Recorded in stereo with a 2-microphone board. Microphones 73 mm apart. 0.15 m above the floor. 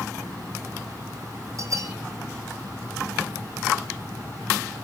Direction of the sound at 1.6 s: 50° right (ahead or behind).